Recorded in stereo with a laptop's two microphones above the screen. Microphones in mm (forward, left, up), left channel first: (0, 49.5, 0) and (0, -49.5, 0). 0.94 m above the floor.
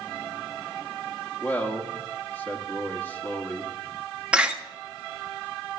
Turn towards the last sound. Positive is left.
turn(degrees=-10)  # may be behind; listen again after turning